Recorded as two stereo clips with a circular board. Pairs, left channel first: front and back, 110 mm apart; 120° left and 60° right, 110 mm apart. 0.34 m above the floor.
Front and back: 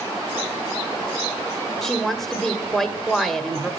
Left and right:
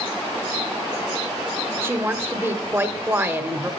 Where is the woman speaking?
85° right, 1.1 m.